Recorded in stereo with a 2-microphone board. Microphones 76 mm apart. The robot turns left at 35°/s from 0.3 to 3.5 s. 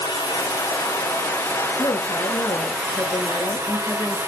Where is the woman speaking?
95° left, 3.5 m; by 4.2 s 35° left, 3.5 m.